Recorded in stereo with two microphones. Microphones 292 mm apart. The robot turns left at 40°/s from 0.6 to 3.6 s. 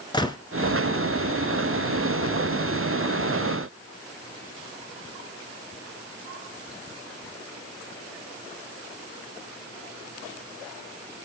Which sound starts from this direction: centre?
A gunshot, at 0.1 s.